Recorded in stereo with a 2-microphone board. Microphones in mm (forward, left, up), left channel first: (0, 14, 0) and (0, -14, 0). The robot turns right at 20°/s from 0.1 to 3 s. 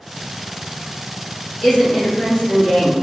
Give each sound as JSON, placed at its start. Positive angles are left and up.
{"t": 1.6, "sound": "a woman speaking", "side_deg": 25, "distance_m": 1.6}